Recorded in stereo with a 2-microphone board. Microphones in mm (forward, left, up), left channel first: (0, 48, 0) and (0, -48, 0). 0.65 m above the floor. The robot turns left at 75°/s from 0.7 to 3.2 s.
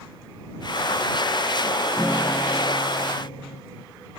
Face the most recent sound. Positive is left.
turn(degrees=90)